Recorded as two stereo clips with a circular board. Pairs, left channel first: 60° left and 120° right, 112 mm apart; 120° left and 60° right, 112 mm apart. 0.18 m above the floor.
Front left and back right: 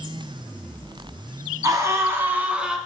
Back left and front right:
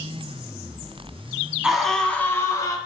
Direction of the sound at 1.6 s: 140° right.